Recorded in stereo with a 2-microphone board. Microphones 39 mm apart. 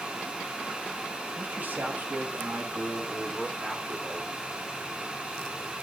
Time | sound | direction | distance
1.4 | a man speaking | 50° right (ahead or behind) | 1.4 m